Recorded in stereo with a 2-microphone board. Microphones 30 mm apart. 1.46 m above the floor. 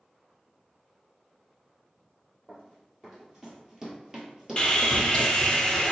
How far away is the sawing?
About 0.6 m.